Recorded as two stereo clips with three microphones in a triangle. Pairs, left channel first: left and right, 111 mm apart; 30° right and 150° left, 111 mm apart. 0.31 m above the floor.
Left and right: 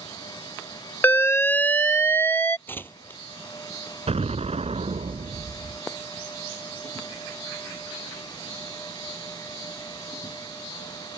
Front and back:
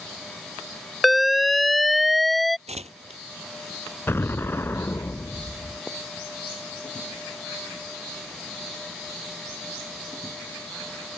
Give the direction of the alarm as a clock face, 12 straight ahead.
10 o'clock.